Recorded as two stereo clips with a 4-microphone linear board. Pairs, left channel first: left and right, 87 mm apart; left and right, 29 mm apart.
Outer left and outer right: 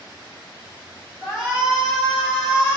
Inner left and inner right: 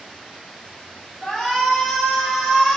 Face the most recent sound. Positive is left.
turn(degrees=-5)  # may be behind; listen again after turning